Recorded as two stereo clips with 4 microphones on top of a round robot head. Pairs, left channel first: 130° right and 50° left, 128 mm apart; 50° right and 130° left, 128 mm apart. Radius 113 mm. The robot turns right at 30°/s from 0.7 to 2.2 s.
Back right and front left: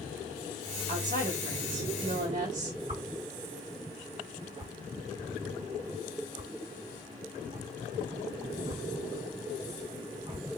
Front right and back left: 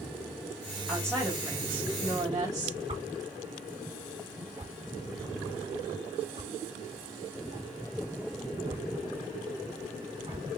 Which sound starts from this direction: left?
A whoosh, at 2.9 s.